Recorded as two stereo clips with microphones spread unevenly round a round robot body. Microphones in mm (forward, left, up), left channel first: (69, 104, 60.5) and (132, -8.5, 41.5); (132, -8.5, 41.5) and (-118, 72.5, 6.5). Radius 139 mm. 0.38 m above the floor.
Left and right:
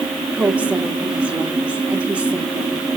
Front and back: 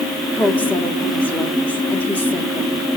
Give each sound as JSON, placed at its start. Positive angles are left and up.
{"t": 0.3, "sound": "a woman speaking", "azimuth_deg": -110, "distance_m": 1.0}